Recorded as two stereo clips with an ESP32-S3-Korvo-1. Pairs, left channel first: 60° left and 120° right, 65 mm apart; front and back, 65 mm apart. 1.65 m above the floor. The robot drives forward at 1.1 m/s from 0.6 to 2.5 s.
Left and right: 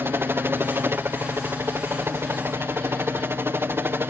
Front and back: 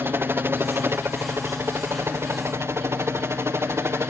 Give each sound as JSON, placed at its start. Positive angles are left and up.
{"t": 0.0, "sound": "a helicopter", "azimuth_deg": -150}